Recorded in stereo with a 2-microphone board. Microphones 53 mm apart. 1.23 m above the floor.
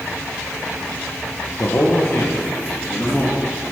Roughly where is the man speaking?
Left.